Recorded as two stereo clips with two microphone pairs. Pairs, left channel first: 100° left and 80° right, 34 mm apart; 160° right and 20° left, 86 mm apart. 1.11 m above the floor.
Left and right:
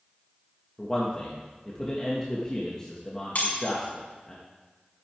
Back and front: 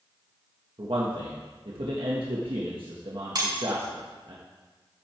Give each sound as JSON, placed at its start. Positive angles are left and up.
{"t": 0.8, "sound": "a man speaking", "azimuth_deg": 30, "distance_m": 1.6}
{"t": 3.4, "sound": "breaking glass", "azimuth_deg": 60, "distance_m": 5.5}